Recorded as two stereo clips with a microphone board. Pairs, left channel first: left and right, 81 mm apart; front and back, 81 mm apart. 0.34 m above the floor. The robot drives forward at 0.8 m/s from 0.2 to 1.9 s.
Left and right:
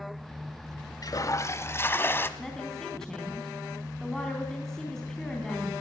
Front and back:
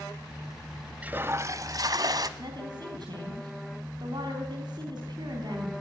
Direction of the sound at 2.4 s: 175° left.